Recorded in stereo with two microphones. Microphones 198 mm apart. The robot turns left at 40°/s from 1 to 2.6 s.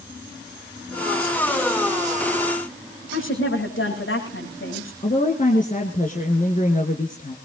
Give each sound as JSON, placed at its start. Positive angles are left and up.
{"t": 3.1, "sound": "a woman speaking", "side_deg": 80, "distance_m": 8.5}
{"t": 5.0, "sound": "a woman speaking", "side_deg": 40, "distance_m": 1.9}